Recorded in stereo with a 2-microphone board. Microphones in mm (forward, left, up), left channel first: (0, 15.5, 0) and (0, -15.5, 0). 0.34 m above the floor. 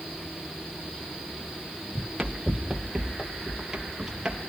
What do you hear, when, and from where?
1.9 s running footsteps: 10° right (ahead or behind), 1.7 m